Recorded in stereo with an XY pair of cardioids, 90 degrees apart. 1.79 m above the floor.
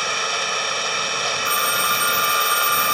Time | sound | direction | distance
0.0 | an engine running | 10° right | ?
1.4 | a phone ringing | 10° left | ?